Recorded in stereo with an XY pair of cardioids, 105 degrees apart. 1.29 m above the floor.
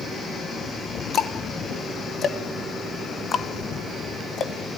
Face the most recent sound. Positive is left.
turn(degrees=50)